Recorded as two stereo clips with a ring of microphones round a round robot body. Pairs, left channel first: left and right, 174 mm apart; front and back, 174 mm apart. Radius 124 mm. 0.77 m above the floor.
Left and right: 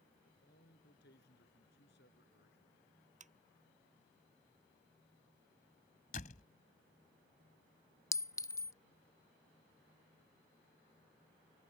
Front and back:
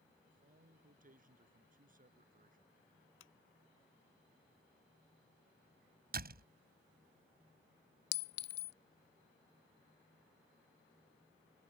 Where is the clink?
15° left.